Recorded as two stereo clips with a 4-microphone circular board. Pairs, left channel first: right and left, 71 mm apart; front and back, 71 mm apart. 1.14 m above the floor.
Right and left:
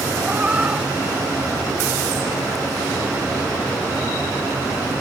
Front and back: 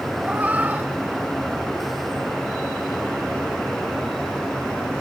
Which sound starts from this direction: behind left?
A cat meowing, at 0.2 s.